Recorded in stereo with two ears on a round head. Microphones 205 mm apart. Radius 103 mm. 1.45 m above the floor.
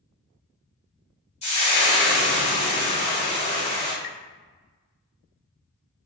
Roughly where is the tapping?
Left.